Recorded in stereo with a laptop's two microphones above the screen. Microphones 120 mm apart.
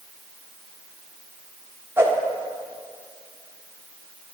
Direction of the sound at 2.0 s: 20° right (ahead or behind).